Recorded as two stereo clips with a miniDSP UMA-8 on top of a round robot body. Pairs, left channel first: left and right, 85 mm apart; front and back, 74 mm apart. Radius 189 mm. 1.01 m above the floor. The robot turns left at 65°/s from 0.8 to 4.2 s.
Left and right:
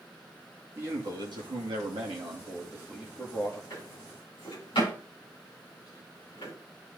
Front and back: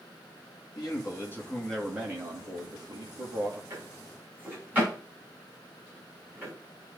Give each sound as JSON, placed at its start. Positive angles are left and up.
{"t": 0.8, "sound": "a man speaking", "azimuth_deg": -25, "distance_m": 2.5}
{"t": 3.7, "sound": "a drawer", "azimuth_deg": 145, "distance_m": 5.5}